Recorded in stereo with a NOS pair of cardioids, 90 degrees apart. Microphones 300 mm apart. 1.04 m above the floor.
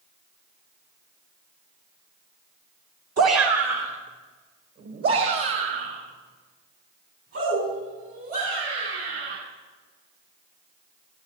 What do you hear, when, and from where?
3.2 s a shout: 55° right, 1.9 m; by 9.3 s 50° right, 11.5 m